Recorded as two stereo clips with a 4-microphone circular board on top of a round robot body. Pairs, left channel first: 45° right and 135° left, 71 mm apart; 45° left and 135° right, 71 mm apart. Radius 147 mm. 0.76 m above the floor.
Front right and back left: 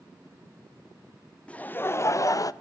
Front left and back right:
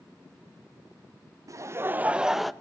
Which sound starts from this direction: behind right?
Laughter, at 1.5 s.